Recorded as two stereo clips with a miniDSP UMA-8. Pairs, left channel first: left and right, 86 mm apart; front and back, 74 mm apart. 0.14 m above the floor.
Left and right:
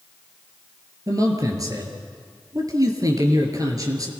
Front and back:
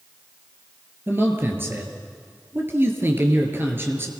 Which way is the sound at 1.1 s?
125° right.